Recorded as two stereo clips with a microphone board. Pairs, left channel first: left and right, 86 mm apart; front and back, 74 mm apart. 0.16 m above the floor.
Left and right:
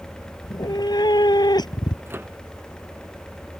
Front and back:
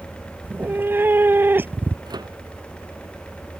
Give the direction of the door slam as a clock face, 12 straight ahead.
I don't hear a door slam.